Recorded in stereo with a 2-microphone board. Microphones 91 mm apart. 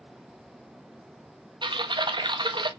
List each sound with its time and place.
1.6 s typing on a keyboard: 65° right (ahead or behind), 0.7 m